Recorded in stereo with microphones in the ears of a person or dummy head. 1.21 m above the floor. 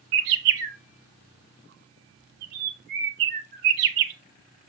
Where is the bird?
50° right (ahead or behind), 1.5 m.